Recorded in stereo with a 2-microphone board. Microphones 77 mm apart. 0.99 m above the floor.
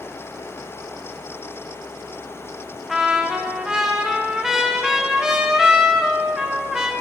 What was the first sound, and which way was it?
A trumpet, 5° right (ahead or behind).